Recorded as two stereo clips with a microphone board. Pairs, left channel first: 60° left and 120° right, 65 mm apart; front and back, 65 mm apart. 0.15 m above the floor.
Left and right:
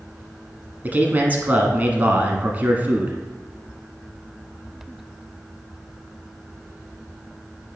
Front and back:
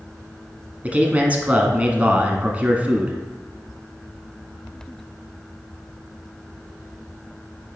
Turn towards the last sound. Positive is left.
turn(degrees=-140)